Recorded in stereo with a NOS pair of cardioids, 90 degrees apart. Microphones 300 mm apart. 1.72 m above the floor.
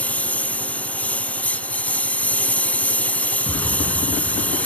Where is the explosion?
10° left.